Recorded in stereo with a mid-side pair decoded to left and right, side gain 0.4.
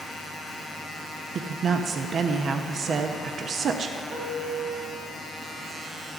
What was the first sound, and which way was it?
A woman speaking, 55° right.